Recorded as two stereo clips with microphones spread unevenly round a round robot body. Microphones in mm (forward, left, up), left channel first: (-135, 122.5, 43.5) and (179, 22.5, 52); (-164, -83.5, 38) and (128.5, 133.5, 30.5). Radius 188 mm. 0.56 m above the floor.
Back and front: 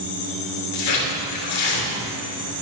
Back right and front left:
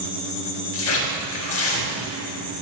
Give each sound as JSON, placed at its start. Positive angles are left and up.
{"t": 0.7, "sound": "tearing paper", "azimuth_deg": 165, "distance_m": 3.0}